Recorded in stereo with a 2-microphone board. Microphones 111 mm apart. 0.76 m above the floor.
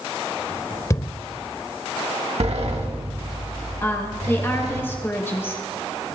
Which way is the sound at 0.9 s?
30° left (ahead or behind).